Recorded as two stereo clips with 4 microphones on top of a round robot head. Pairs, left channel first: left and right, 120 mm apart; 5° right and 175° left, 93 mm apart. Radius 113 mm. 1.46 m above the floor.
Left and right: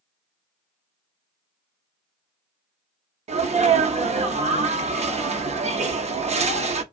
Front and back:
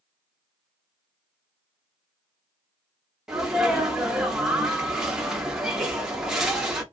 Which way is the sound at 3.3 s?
105° right.